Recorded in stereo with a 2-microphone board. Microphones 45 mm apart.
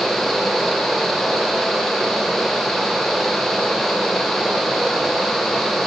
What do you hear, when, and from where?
Only background noise.